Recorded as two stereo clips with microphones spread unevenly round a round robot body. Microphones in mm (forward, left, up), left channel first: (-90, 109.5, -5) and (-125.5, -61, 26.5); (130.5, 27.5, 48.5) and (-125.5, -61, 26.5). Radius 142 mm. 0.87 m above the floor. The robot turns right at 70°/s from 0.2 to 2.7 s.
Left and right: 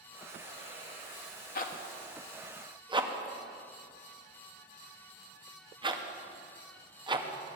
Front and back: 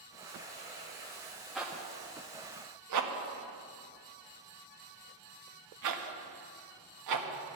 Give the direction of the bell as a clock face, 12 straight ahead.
No bell in this recording.